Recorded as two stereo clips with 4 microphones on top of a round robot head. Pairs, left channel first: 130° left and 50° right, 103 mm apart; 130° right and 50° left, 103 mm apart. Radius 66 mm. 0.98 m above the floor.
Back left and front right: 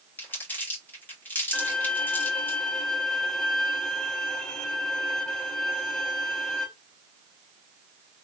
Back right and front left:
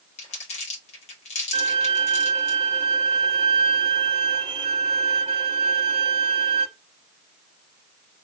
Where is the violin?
55° left, 0.9 m.